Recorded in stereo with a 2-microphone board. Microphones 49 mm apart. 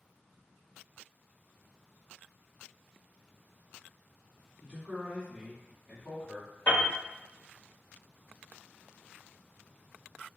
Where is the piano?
45° left (ahead or behind), 1.6 m.